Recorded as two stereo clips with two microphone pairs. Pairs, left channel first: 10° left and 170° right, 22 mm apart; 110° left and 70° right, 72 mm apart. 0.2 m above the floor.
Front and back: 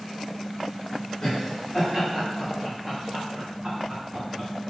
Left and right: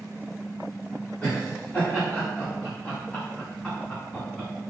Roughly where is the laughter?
Left.